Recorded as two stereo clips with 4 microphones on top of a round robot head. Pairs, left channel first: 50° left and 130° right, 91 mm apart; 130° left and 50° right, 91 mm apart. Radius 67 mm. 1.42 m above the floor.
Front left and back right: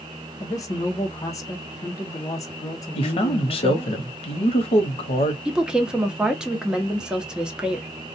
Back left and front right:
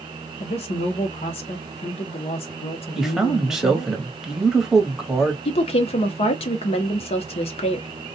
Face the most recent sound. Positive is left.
turn(degrees=150)